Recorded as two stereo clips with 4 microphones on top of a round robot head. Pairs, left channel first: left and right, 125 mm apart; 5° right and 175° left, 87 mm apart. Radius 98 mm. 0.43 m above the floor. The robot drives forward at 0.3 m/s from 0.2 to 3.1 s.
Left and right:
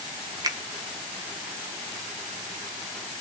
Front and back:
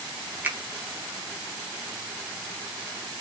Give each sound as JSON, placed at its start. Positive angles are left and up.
{"t": 0.4, "sound": "a finger snap", "azimuth_deg": -125, "distance_m": 0.7}